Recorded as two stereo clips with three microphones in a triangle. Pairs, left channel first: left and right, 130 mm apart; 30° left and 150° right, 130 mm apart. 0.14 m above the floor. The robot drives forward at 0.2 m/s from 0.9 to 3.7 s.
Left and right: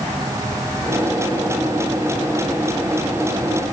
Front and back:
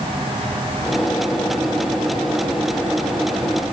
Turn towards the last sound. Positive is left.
No sound to turn to.